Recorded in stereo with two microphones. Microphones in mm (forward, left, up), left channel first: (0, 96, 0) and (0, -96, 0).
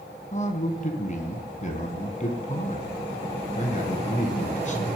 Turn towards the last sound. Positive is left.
turn(degrees=40)  # may be behind; listen again after turning